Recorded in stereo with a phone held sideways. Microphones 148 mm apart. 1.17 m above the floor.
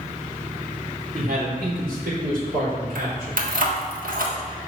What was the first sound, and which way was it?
A man speaking, 80° right.